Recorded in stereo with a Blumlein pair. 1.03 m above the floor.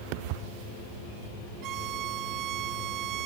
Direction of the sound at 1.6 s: 35° right.